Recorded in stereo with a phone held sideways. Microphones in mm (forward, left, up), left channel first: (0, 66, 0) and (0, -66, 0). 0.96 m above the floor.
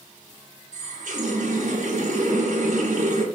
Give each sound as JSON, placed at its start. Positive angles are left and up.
{"t": 0.7, "sound": "a running tap", "side_deg": -70, "distance_m": 1.0}